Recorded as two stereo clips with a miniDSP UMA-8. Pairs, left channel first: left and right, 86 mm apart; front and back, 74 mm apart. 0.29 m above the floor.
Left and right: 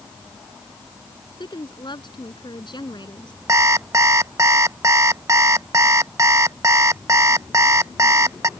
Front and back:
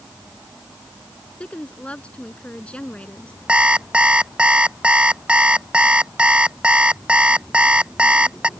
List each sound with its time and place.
1.4 s a woman speaking: 75° left
3.5 s an alarm clock: 115° right